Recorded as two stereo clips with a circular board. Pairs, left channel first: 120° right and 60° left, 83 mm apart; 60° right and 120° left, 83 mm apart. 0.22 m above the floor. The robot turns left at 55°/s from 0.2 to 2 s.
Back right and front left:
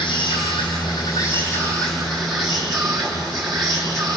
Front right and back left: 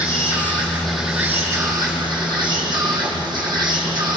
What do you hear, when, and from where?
0.0 s an insect: 105° right, 5.5 m; by 4.2 s 155° left, 5.5 m